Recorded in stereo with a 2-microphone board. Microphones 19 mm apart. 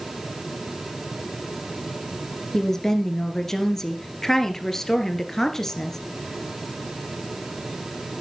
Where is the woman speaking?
20° left (ahead or behind), 2 m.